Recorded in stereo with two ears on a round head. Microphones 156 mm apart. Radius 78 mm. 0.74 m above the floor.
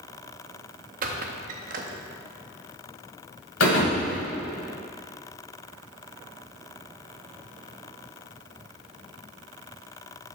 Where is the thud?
80° left, 1.7 m.